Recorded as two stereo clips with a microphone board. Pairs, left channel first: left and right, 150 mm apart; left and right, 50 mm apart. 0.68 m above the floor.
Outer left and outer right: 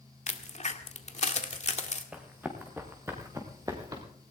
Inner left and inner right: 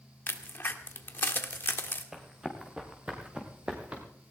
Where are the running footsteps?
10° right (ahead or behind), 3.5 m; by 4.0 s 25° right (ahead or behind), 4 m.